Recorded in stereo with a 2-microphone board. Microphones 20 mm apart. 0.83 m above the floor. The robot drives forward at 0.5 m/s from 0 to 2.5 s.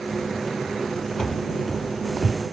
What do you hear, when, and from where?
1.2 s running footsteps: 25° left (ahead or behind), 0.9 m; by 2.4 s 25° right (ahead or behind), 0.9 m